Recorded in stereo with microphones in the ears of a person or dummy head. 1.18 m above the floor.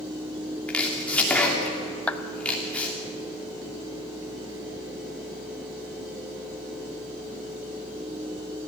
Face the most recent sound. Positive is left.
turn(degrees=10)  # may be behind; listen again after turning